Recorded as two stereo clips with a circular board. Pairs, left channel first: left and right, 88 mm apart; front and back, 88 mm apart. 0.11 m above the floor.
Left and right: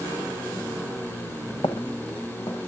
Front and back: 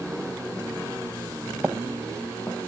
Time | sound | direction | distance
1.6 | footsteps | 105° left | 1.9 m